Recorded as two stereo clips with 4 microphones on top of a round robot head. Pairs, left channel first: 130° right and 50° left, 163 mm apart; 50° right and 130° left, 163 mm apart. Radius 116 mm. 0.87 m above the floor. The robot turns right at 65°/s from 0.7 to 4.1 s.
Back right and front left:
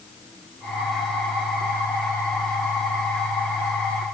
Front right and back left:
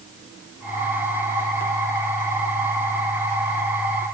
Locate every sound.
Only background noise.